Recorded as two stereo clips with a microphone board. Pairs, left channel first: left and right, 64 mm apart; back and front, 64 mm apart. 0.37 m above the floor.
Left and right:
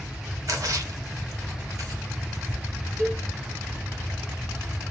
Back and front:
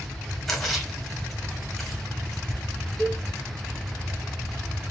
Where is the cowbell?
105° right, 2.0 m.